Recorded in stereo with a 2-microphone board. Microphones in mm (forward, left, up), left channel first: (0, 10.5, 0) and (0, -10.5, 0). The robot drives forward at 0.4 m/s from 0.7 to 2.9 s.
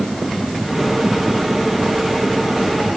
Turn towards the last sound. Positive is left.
No sound to turn to.